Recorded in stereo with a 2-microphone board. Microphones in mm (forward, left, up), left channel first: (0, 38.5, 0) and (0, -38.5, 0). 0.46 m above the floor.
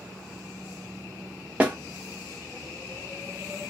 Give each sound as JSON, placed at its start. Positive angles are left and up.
{"t": 1.6, "sound": "a snare drum", "side_deg": -20, "distance_m": 0.9}